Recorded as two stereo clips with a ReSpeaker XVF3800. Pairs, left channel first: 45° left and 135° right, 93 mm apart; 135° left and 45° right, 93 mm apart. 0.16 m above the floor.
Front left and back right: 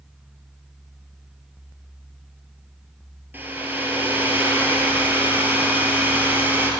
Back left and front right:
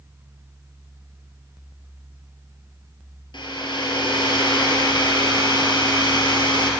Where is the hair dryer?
160° left, 1.9 m.